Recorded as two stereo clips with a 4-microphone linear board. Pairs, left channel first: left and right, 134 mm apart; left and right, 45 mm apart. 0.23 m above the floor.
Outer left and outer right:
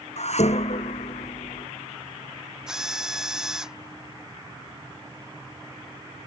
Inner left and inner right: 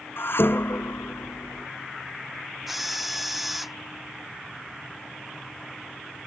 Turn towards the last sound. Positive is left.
turn(degrees=-5)  # may be behind; listen again after turning